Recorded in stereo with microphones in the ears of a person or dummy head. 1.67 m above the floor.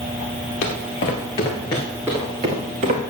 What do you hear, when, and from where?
0.6 s footsteps: 45° left (ahead or behind), 2.5 m; by 3.0 s 40° right (ahead or behind), 2 m